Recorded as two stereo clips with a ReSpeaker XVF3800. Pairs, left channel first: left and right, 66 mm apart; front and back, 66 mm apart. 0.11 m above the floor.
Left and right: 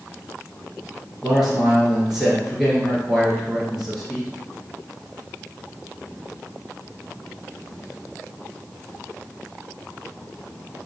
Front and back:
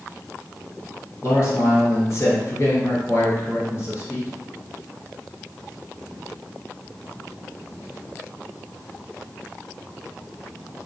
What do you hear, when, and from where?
1.2 s a man speaking: 5° right, 1.7 m